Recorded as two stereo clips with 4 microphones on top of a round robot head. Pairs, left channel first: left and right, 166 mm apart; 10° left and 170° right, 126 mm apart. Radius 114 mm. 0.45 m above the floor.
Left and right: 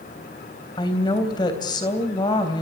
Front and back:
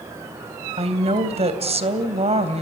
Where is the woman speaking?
155° left, 3 m.